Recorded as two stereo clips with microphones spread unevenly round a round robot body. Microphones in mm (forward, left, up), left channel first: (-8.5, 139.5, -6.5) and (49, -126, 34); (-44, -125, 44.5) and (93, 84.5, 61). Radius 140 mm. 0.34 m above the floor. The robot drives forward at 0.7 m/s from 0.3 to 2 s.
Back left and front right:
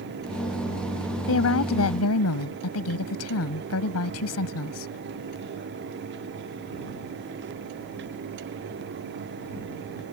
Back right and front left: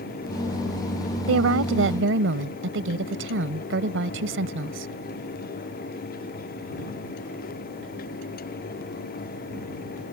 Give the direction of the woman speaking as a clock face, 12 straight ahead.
9 o'clock.